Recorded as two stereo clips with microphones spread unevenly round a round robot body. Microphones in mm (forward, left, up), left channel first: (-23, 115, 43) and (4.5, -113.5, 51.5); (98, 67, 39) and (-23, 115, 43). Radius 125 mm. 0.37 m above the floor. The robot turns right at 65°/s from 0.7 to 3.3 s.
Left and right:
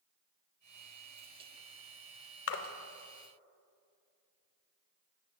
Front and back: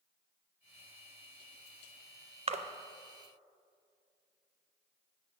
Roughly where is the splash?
Behind left.